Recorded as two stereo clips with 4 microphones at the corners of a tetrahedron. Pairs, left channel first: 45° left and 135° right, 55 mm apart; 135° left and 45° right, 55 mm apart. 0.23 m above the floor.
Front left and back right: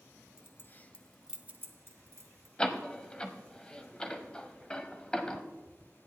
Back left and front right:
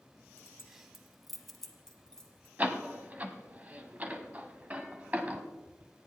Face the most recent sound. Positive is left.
turn(degrees=-10)